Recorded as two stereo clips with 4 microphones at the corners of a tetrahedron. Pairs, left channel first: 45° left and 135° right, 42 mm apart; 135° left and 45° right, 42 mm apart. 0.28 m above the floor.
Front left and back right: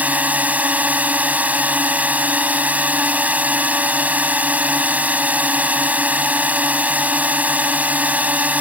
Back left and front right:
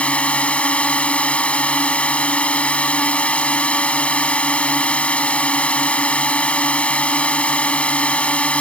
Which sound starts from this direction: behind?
A drone, at 0.0 s.